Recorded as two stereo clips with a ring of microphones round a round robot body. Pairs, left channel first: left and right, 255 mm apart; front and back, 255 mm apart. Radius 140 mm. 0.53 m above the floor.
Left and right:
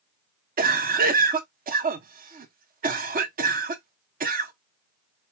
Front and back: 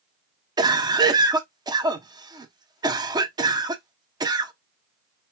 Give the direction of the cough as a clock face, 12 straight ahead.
4 o'clock.